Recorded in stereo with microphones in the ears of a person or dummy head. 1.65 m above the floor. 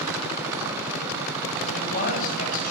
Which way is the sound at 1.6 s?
45° left (ahead or behind).